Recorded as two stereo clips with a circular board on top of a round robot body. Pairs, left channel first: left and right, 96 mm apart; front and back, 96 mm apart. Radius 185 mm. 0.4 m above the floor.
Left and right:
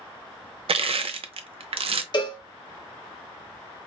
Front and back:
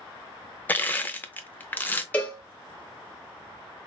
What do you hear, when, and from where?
0.7 s crushing: 70° right, 0.6 m
2.1 s a cowbell: 70° left, 1.4 m